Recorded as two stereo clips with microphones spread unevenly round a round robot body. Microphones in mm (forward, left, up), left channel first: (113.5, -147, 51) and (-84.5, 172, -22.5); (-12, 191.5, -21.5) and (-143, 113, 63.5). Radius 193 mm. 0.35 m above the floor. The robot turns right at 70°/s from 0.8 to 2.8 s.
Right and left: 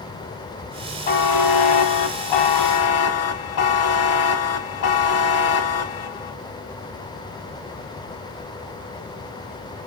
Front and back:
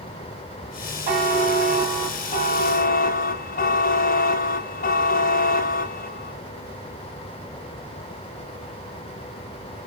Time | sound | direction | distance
1.1 | a buzzer | 125° right | 0.8 m